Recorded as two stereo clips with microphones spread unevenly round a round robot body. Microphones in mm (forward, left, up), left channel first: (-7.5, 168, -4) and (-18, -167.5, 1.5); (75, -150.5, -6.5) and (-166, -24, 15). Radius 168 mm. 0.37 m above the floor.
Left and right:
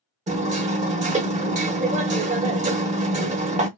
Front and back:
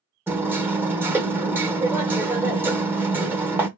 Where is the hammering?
125° right, 0.6 m.